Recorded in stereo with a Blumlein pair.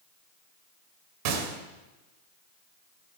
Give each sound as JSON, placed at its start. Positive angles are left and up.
{"t": 1.2, "sound": "a gunshot", "azimuth_deg": -45, "distance_m": 1.9}